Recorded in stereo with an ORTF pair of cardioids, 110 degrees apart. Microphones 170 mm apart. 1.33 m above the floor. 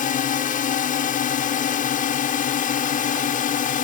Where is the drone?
55° left.